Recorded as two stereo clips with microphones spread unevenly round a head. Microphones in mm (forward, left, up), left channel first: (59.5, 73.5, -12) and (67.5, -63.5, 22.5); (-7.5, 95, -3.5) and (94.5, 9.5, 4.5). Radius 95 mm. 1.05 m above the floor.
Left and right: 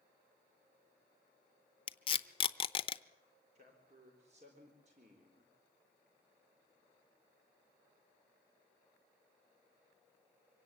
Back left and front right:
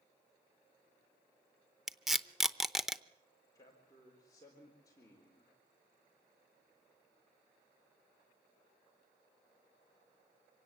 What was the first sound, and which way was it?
Tape being pulled, 45° left.